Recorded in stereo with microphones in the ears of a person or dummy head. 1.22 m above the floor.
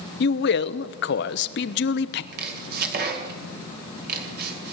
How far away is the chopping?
About 2.5 m.